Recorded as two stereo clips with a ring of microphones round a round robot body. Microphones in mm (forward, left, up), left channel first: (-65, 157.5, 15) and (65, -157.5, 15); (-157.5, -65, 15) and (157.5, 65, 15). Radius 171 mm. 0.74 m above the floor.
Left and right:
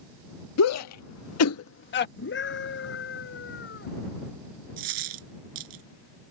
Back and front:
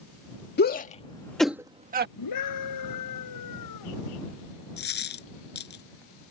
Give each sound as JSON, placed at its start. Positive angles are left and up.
{"t": 0.6, "sound": "a shout", "azimuth_deg": 145}
{"t": 2.2, "sound": "a scream", "azimuth_deg": 170}
{"t": 4.8, "sound": "a dropped coin", "azimuth_deg": -95}